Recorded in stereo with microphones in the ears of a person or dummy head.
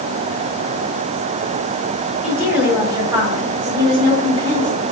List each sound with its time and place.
2.2 s a woman speaking: 5° right (ahead or behind), 1.8 m; by 4.8 s 25° right (ahead or behind), 3.5 m